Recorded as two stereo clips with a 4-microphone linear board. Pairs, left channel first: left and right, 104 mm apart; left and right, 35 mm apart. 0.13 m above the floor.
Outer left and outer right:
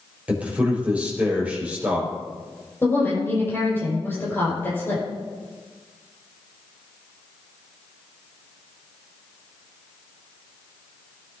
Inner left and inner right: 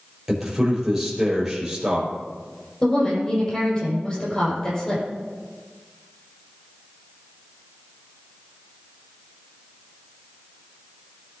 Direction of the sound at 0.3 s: 10° right (ahead or behind).